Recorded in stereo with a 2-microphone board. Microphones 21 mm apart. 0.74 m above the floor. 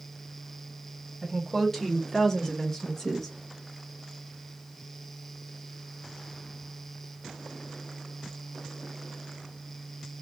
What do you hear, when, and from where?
1.2 s a woman speaking: 15° left (ahead or behind), 1.7 m; by 3.3 s 20° left (ahead or behind), 1.0 m